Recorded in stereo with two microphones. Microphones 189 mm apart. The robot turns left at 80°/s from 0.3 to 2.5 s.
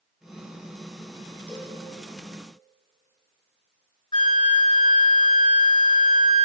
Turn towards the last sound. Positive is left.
turn(degrees=30)  # may be behind; listen again after turning